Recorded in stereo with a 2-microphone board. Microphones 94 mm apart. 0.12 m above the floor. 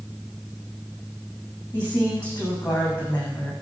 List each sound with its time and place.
1.7 s a woman speaking: 20° left (ahead or behind), 8.5 m